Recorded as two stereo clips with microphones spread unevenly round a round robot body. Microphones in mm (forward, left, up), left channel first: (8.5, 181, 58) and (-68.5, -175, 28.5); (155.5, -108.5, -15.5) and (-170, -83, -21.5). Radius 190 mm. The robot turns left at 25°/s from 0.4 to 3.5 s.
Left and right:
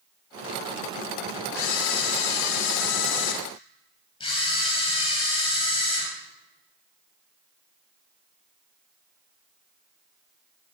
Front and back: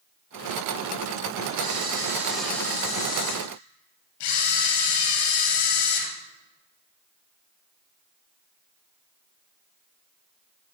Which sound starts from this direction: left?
A camera shutter, at 1.5 s.